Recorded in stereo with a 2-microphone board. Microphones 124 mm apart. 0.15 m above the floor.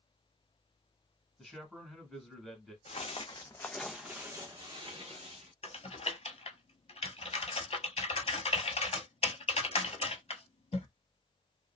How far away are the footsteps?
About 0.8 m.